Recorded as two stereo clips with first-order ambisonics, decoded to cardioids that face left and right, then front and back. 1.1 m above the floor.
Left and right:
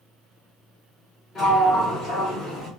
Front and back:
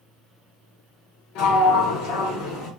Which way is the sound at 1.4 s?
20° left.